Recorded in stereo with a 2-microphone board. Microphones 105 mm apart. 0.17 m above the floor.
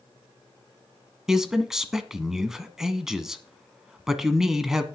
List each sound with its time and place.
1.3 s a man speaking: 5° right (ahead or behind), 1.2 m